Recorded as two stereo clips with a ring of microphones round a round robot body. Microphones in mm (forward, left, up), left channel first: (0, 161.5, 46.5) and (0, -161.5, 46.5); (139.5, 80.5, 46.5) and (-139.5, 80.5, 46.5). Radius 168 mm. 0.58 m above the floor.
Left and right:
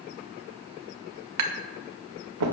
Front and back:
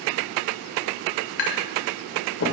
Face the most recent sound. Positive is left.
turn(degrees=-50)